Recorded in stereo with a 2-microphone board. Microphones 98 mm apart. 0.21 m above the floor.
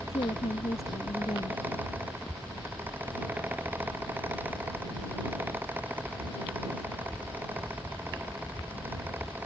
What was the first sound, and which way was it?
A woman speaking, 85° left.